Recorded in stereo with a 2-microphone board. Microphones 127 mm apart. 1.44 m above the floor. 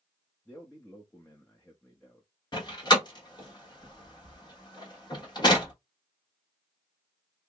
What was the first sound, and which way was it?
A man speaking, 15° left (ahead or behind).